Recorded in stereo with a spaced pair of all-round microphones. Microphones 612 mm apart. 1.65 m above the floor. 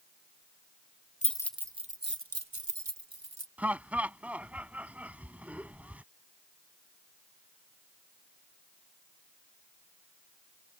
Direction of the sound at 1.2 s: 10° left (ahead or behind).